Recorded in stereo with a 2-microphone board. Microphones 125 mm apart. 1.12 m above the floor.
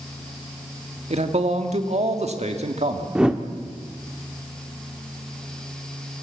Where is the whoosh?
5° right (ahead or behind), 1.0 m.